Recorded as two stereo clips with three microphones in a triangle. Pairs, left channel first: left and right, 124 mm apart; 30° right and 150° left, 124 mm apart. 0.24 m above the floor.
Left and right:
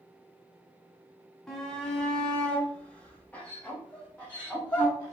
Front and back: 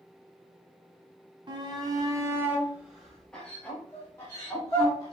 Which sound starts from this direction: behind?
A shout, at 1.5 s.